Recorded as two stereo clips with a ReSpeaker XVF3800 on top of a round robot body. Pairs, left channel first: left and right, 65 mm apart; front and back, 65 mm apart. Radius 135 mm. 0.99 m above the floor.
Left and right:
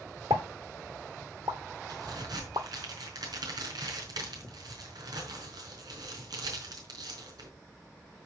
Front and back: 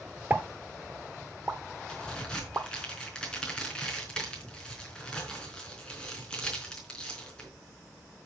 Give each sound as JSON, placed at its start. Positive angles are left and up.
{"t": 0.3, "sound": "a pop", "azimuth_deg": -115, "distance_m": 0.7}
{"t": 1.9, "sound": "a crack", "azimuth_deg": -80, "distance_m": 4.0}